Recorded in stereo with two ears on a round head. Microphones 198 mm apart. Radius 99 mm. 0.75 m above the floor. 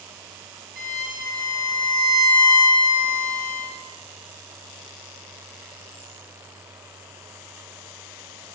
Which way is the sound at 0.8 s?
40° right (ahead or behind).